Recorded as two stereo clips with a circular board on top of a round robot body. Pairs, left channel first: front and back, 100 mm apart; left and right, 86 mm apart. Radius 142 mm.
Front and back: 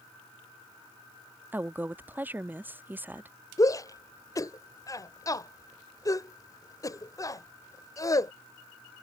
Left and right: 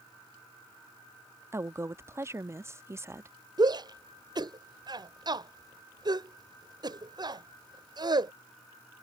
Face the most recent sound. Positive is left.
turn(degrees=-55)